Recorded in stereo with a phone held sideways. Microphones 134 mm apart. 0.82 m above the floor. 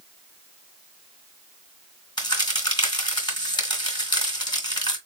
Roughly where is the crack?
Left.